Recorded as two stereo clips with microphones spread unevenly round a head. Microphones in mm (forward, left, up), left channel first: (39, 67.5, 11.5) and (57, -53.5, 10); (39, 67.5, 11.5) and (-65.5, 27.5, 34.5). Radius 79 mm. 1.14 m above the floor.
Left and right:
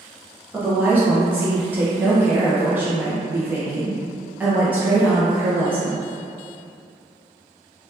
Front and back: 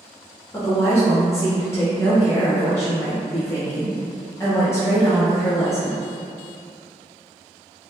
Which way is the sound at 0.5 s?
15° right.